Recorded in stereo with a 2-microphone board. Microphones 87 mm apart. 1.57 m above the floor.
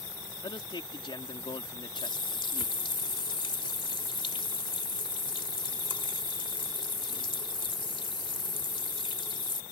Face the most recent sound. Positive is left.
turn(degrees=75)  # may be behind; listen again after turning